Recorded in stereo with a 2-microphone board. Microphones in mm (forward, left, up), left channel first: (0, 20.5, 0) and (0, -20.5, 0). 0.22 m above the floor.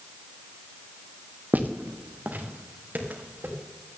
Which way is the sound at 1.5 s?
45° right (ahead or behind).